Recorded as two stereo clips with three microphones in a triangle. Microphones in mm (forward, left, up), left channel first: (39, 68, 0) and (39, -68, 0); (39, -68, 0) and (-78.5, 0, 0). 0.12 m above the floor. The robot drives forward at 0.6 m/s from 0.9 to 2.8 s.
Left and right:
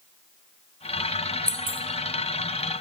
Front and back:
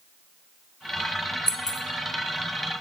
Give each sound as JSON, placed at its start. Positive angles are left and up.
{"t": 1.5, "sound": "keys jangling", "azimuth_deg": 85, "distance_m": 1.0}